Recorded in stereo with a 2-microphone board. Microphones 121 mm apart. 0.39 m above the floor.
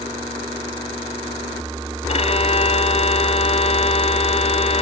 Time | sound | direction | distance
2.1 | a violin | 60° left (ahead or behind) | ?